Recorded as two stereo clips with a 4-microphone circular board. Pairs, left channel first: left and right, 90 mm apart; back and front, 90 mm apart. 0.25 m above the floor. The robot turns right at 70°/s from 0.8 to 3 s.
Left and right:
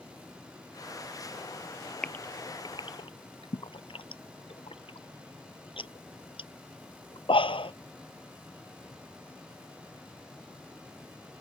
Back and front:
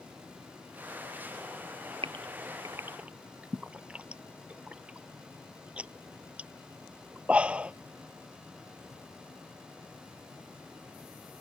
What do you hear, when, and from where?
2.0 s a gasp: 10° left; by 7.7 s 75° left